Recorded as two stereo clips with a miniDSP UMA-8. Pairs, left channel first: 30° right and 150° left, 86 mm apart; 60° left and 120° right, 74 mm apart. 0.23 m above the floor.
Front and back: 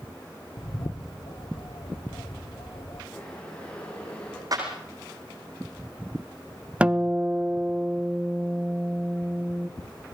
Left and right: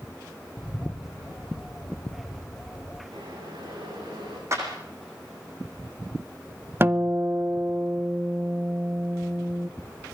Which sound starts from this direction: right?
Boiling, at 3.1 s.